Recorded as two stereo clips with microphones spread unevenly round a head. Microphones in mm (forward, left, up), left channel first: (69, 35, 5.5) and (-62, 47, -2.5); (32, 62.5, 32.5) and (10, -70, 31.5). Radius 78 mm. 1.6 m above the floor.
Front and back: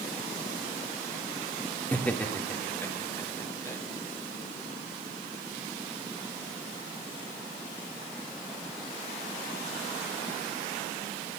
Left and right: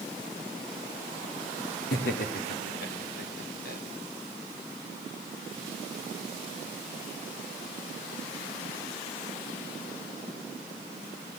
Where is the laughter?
75° left, 4.5 m; by 3.8 s 65° left, 5.5 m.